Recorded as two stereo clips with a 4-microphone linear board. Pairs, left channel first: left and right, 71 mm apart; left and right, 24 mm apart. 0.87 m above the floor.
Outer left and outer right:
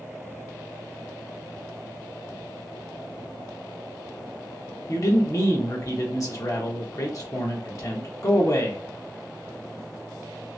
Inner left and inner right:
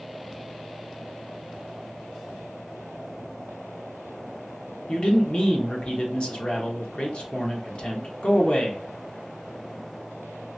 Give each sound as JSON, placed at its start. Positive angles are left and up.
{"t": 4.9, "sound": "a man speaking", "side_deg": 50, "distance_m": 1.1}